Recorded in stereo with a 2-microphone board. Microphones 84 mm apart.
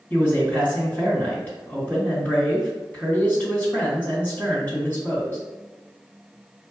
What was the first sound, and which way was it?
A man speaking, 25° left (ahead or behind).